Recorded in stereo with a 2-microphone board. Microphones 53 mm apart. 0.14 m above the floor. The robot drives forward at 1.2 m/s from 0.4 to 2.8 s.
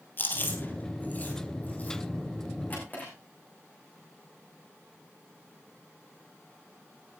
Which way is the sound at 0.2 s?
40° left (ahead or behind).